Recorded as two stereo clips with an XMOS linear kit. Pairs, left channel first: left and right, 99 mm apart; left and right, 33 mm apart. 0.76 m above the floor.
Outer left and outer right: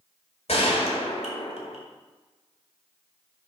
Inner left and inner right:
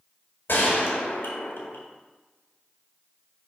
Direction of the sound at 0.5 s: 75° left (ahead or behind).